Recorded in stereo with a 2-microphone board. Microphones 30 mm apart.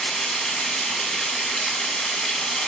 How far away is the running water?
About 0.9 m.